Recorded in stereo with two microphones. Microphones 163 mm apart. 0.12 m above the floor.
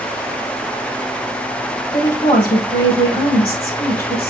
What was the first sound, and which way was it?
A woman speaking, 10° left (ahead or behind).